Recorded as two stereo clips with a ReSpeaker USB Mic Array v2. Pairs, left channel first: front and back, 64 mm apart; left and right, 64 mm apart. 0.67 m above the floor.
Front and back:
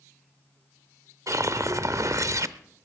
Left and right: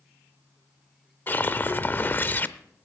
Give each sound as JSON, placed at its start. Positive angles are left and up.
{"t": 1.3, "sound": "a whoosh", "azimuth_deg": 145, "distance_m": 0.6}